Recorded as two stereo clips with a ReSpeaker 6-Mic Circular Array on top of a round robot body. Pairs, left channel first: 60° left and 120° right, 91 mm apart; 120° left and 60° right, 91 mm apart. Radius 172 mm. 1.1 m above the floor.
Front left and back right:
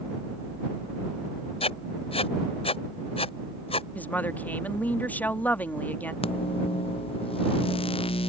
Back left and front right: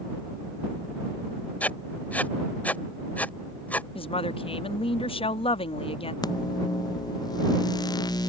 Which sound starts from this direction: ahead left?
Writing, at 1.6 s.